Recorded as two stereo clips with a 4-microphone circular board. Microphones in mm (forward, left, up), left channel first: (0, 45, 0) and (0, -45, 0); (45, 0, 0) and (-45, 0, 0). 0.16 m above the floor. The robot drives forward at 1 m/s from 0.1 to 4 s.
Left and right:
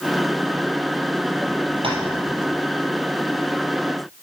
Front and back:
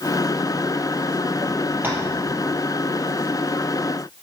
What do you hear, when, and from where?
1.8 s tapping: 110° right, 3 m; by 2.0 s 115° right, 3 m